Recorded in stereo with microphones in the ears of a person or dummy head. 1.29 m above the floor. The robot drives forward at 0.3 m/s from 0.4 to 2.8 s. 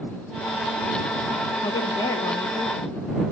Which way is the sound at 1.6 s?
20° left (ahead or behind).